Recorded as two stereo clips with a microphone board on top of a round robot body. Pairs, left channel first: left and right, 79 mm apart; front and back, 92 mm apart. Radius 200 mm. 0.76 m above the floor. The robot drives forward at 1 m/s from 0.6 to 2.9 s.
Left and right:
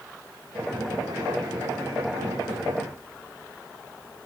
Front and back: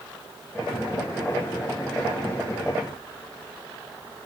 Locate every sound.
Only background noise.